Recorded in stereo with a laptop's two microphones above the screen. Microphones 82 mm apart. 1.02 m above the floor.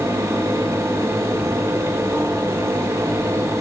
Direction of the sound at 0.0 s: 40° right (ahead or behind).